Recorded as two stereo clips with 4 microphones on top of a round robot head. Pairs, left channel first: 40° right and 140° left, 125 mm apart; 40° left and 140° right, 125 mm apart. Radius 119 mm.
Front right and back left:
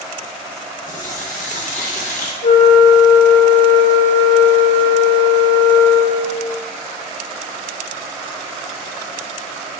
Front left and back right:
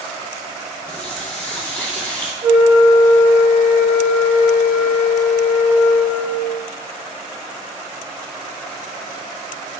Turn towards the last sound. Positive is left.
turn(degrees=-70)